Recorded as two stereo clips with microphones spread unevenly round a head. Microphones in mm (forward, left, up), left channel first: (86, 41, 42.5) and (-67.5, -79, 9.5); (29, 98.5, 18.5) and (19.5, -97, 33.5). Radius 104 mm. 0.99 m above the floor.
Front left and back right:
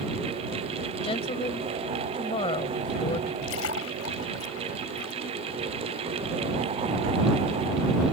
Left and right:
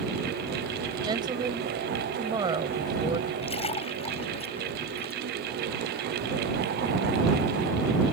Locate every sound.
1.0 s a woman speaking: 25° right
3.4 s a splash: 25° left